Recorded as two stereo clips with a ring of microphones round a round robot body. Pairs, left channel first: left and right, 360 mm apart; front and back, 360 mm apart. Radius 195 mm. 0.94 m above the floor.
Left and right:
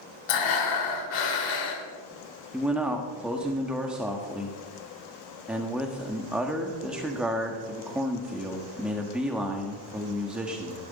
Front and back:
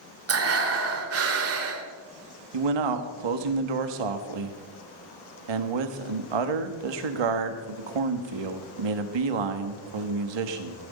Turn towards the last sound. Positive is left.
turn(degrees=180)